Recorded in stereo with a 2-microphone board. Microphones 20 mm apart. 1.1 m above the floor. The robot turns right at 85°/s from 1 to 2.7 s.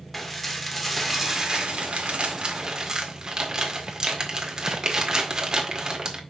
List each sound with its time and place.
0.1 s dishes clattering: 175° left, 1.9 m; by 6.2 s 40° right, 1.9 m